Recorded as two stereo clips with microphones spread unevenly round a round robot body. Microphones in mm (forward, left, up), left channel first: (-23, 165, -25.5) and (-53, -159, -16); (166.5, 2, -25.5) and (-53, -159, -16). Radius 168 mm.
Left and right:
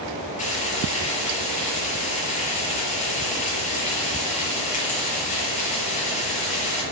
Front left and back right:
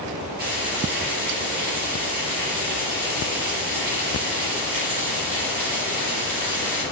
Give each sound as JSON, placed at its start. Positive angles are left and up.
{"t": 0.4, "sound": "frying", "azimuth_deg": 155, "distance_m": 6.0}